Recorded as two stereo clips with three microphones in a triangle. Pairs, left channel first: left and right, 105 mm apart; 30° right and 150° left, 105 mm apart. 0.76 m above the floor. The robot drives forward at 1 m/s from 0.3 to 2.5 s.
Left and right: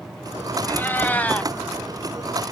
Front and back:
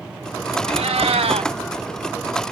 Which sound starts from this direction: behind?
A cat meowing, at 0.7 s.